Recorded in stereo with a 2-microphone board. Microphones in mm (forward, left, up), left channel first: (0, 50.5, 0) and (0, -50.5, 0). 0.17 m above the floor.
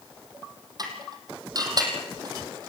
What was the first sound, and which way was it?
Dishes clattering, 40° right (ahead or behind).